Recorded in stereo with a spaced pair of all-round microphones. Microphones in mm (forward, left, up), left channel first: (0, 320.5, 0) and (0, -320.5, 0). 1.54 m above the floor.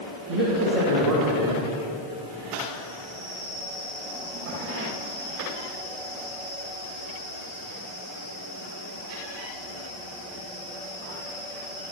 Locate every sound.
0.3 s a man speaking: 75° right (ahead or behind), 1.7 m